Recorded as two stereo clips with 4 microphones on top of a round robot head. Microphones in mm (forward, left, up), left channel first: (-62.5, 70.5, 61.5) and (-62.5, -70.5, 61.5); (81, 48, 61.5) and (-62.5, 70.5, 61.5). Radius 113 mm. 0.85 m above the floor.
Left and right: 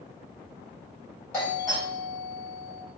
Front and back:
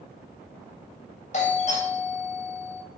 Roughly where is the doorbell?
Ahead.